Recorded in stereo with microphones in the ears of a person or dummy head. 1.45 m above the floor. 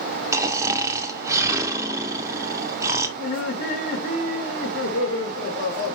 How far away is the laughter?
About 1.1 m.